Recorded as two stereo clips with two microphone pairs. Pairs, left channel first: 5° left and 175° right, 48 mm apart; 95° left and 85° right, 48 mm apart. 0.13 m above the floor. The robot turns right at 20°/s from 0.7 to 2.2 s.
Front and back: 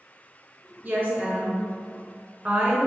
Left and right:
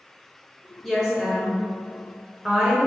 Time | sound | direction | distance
0.8 | a woman speaking | 175° left | 1.4 m